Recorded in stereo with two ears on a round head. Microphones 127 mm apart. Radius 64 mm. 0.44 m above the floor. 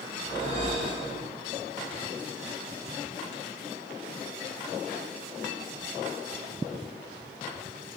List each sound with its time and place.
0.2 s a whoosh: 50° right (ahead or behind), 0.9 m